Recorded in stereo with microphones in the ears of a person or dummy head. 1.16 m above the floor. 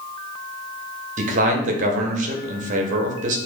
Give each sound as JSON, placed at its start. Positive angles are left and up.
{"t": 1.2, "sound": "a man speaking", "side_deg": -45, "distance_m": 0.8}